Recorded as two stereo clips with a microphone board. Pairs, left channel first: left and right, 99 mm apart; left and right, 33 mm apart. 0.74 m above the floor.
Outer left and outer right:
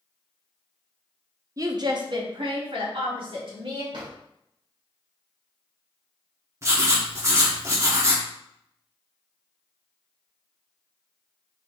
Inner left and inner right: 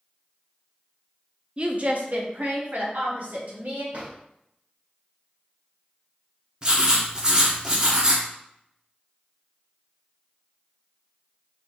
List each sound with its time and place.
1.6 s a woman speaking: 35° right (ahead or behind), 0.6 m; by 3.8 s 60° right (ahead or behind), 2 m
3.9 s a drawer: 55° right (ahead or behind), 1.6 m
6.6 s writing: 30° right (ahead or behind), 1.1 m